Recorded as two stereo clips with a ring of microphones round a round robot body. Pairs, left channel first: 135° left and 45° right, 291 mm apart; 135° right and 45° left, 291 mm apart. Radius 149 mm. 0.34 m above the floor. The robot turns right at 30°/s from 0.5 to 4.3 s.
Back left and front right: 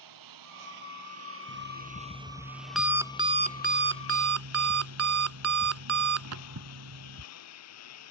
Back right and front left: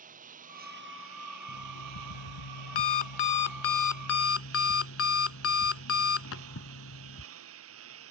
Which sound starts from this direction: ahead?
A lawn mower, at 0.0 s.